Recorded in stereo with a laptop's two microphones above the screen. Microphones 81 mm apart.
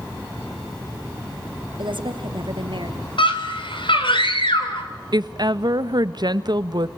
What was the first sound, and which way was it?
A woman speaking, 75° right (ahead or behind).